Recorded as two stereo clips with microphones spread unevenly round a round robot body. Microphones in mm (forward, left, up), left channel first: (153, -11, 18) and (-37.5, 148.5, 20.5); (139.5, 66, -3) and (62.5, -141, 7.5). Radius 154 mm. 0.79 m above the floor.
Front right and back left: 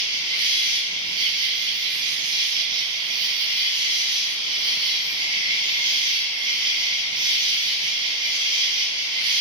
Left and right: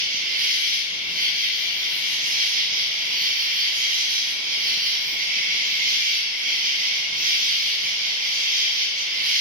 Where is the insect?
155° right, 0.8 m.